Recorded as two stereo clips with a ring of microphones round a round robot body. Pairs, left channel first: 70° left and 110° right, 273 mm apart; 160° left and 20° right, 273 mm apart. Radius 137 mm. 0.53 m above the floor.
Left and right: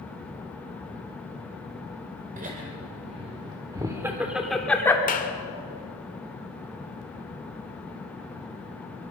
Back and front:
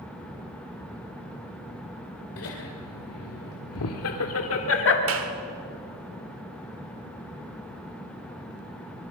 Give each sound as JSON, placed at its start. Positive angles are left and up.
{"t": 2.4, "sound": "laughter", "azimuth_deg": -170, "distance_m": 2.0}
{"t": 5.1, "sound": "a clap", "azimuth_deg": 10, "distance_m": 1.8}